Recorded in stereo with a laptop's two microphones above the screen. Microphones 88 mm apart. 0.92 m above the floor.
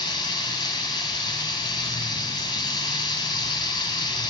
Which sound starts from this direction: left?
Running water, at 0.0 s.